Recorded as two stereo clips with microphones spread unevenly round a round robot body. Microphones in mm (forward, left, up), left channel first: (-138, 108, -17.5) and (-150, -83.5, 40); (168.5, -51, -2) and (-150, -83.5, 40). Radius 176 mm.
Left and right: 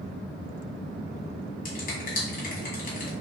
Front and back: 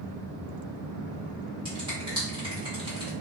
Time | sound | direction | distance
1.6 | a finger snap | 105° left | 1.4 m